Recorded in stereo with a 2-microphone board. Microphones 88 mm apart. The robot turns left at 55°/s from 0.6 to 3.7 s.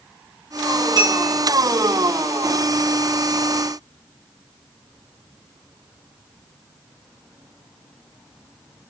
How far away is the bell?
About 7.5 m.